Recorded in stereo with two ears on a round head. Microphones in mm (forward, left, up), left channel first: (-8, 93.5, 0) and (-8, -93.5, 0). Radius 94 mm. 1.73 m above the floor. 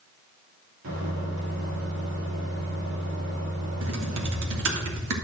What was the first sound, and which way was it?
A microwave, 75° right (ahead or behind).